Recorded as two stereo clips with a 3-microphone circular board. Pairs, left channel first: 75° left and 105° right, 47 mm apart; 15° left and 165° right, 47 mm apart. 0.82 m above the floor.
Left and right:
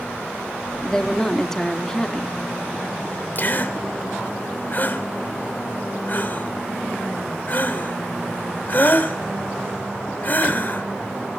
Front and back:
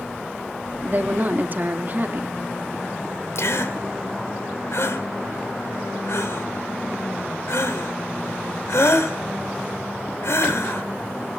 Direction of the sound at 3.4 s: 30° left.